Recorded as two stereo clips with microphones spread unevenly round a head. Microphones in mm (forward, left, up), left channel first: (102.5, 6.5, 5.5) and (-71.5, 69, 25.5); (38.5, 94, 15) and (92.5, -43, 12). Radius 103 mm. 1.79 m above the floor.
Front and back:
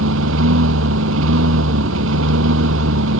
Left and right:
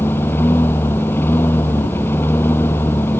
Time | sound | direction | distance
0.0 | a lawn mower | 165° right | ?